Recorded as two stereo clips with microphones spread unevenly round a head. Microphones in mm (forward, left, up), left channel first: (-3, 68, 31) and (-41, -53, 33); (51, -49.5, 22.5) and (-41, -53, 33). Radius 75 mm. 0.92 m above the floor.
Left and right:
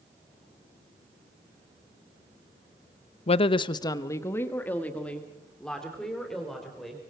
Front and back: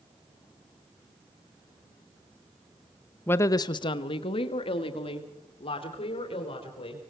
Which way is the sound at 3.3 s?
65° left.